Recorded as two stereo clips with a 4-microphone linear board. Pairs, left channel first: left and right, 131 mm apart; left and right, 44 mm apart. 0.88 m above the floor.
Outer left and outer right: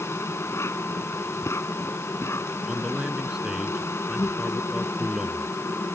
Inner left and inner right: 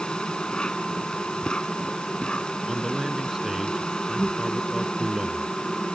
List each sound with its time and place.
0.0 s an insect: 20° left (ahead or behind)
2.7 s a man speaking: 5° right (ahead or behind)